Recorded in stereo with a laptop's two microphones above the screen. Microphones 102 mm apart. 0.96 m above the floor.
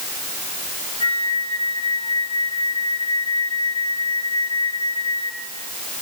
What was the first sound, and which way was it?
A flute, 60° left (ahead or behind).